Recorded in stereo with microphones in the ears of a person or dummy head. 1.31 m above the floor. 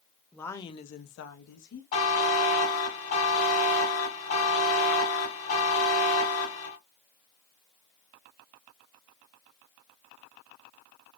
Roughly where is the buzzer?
Left.